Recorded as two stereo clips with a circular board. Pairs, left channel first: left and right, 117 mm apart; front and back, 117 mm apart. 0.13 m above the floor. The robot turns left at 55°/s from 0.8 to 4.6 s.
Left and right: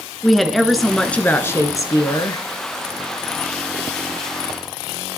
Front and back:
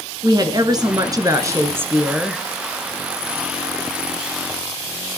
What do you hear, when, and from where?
0.2 s a woman speaking: straight behind, 1.5 m; by 2.4 s 90° left, 1.5 m